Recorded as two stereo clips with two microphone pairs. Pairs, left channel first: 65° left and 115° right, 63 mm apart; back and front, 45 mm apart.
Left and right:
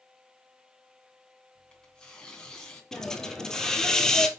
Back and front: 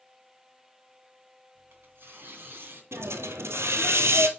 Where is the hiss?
15° right, 1.2 m.